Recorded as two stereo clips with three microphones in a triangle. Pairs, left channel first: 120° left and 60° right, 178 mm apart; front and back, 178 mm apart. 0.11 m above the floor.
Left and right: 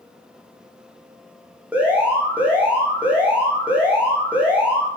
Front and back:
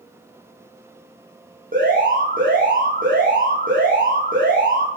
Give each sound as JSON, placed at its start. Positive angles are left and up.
{"t": 1.7, "sound": "an alarm", "azimuth_deg": -140, "distance_m": 6.5}